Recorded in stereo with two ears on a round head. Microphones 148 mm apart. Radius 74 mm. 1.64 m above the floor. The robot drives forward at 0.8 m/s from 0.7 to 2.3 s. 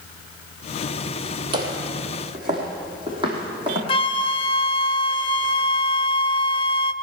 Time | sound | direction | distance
1.5 | footsteps | 30° right (ahead or behind) | 2.5 m
3.9 | a flute | 35° left (ahead or behind) | 0.5 m